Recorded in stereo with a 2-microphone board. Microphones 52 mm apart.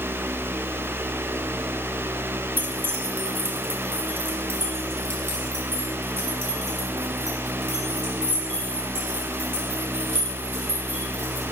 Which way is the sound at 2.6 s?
45° right (ahead or behind).